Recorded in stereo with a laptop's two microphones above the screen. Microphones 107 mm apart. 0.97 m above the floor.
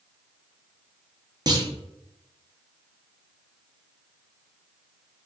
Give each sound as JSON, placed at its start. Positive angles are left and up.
{"t": 1.5, "sound": "a clunk", "side_deg": -40, "distance_m": 0.7}